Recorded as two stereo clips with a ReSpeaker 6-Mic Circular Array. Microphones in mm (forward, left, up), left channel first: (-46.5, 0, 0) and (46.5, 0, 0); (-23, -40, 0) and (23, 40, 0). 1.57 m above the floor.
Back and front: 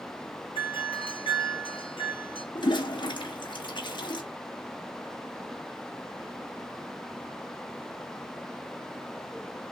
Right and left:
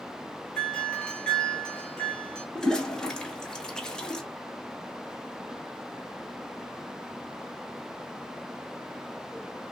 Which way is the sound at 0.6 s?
155° left.